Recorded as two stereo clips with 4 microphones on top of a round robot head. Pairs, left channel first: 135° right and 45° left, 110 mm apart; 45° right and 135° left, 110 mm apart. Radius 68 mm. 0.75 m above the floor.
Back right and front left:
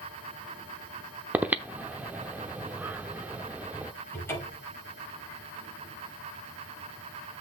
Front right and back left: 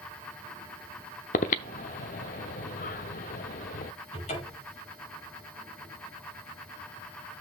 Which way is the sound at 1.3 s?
35° right.